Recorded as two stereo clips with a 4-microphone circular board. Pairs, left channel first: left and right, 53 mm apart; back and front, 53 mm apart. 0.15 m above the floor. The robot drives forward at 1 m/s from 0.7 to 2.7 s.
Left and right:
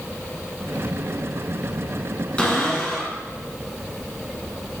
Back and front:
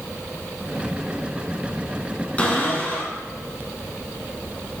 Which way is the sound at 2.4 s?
140° left.